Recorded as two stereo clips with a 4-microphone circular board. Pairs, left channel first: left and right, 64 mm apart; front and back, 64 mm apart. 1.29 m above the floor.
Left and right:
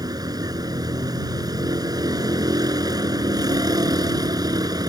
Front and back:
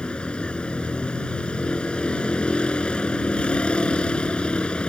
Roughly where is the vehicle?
Right.